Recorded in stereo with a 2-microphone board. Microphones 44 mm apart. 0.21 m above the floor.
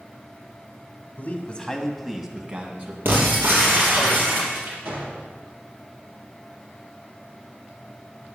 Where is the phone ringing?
I don't hear a phone ringing.